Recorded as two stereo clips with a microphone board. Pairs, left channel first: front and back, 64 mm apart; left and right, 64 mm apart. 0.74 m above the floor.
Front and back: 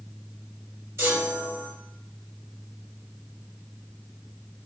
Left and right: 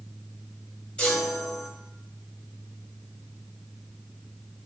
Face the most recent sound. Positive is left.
turn(degrees=155)